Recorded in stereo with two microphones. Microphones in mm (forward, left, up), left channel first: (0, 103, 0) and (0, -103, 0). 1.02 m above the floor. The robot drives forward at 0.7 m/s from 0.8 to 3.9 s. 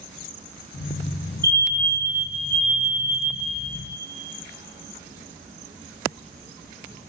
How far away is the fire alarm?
About 4 m.